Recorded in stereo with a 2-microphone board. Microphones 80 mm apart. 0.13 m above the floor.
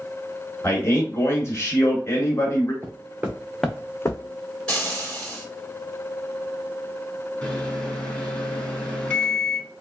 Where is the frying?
10° left (ahead or behind), 2.0 m.